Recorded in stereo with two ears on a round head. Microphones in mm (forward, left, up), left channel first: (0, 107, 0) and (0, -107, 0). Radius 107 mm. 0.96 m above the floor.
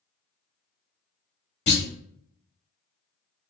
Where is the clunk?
45° left (ahead or behind), 1.6 m.